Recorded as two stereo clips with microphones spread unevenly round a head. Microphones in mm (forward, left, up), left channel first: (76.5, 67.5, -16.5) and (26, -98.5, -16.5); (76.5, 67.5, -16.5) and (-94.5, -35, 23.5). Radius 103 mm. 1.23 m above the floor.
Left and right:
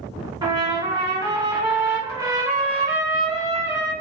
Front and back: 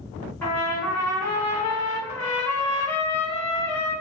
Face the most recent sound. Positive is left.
turn(degrees=-60)